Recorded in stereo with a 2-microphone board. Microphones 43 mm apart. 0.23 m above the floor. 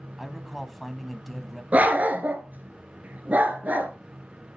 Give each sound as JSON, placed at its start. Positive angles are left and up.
{"t": 0.2, "sound": "a man speaking", "side_deg": 0, "distance_m": 1.2}
{"t": 1.7, "sound": "a dog barking", "side_deg": -40, "distance_m": 1.1}